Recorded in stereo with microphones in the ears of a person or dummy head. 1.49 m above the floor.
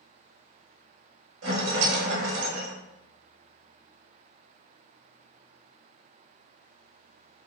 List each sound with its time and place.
1.4 s a rattle: 80° right, 0.7 m